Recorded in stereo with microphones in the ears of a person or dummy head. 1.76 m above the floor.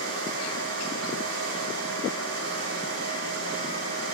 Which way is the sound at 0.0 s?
70° right (ahead or behind).